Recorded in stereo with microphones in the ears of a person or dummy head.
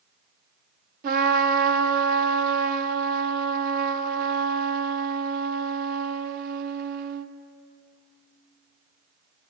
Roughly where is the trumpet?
Right.